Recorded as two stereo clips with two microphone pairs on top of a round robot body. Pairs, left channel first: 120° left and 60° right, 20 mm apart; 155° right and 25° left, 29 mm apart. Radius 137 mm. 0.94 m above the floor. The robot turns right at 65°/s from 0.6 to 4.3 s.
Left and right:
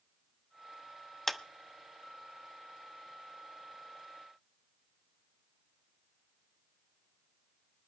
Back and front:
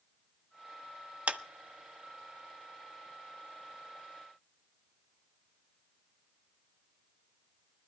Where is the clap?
40° left, 1.0 m; by 1.4 s 50° left, 1.0 m.